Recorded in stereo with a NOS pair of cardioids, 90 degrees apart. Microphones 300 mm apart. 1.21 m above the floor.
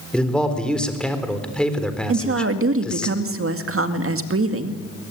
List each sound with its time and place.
0.1 s a man speaking: 5° left, 4 m
2.1 s a woman speaking: 45° right, 2 m